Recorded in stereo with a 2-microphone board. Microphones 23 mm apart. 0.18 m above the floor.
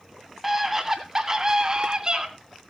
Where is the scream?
10° right (ahead or behind), 1.6 m; by 2.3 s 40° right (ahead or behind), 2 m.